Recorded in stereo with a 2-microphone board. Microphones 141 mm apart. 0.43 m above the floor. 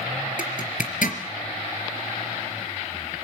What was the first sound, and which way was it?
A zipper, 70° left (ahead or behind).